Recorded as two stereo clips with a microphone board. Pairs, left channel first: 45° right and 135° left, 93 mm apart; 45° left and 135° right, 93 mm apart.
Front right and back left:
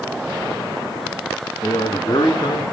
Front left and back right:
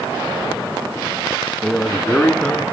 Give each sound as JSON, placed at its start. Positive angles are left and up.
{"t": 1.6, "sound": "a man speaking", "azimuth_deg": -40, "distance_m": 2.0}